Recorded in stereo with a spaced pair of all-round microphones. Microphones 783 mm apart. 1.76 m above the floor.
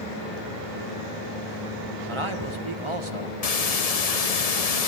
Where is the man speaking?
35° right (ahead or behind), 1.6 m.